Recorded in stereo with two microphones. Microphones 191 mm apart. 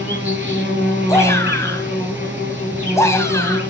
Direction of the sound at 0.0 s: 10° right (ahead or behind).